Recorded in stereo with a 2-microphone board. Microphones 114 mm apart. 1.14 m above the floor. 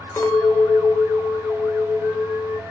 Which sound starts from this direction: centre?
A clink, at 0.2 s.